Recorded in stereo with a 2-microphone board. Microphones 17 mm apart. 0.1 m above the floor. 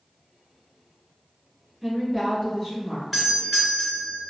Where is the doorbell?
5° left (ahead or behind), 1.9 m.